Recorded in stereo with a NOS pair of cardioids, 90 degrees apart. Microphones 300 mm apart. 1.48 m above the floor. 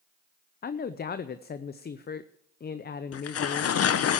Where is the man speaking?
35° left, 0.7 m.